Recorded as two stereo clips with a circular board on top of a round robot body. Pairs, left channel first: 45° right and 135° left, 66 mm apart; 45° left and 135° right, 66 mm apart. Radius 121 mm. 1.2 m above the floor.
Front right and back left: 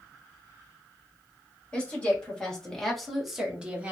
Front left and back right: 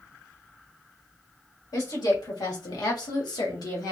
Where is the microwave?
No microwave in this recording.